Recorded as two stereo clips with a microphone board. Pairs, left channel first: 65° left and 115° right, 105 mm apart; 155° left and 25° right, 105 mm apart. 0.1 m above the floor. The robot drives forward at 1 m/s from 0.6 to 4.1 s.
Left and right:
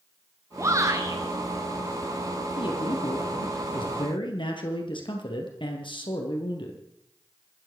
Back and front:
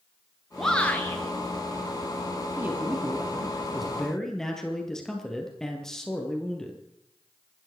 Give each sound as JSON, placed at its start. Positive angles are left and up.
{"t": 0.6, "sound": "a shout", "azimuth_deg": -115, "distance_m": 1.2}
{"t": 2.6, "sound": "a man speaking", "azimuth_deg": 45, "distance_m": 3.5}